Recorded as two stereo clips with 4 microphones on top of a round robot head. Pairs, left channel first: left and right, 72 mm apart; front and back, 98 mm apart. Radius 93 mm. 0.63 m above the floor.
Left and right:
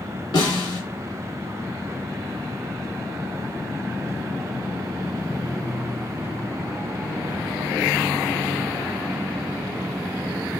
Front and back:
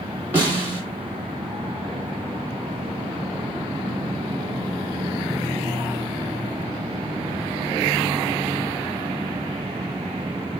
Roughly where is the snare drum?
Left.